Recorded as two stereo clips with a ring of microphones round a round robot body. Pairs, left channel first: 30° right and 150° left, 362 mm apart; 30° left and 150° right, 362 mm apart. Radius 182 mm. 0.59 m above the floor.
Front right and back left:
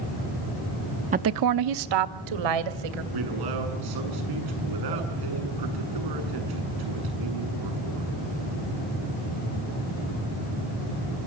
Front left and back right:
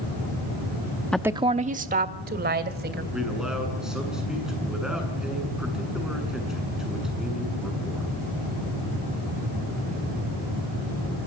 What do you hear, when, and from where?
1.1 s a woman speaking: 115° left, 0.6 m; by 3.0 s 145° left, 3 m
3.1 s a man speaking: 120° left, 8 m